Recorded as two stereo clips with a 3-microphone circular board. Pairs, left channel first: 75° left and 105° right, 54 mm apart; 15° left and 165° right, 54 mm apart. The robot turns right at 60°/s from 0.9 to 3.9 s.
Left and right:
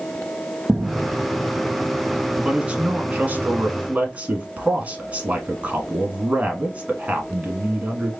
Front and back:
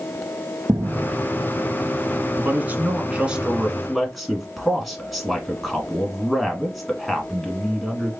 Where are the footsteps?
175° right, 0.8 m; by 2.3 s 20° left, 1.9 m.